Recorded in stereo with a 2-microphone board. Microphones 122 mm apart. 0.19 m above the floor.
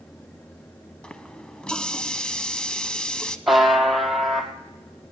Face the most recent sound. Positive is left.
turn(degrees=0)  # may be behind; listen again after turning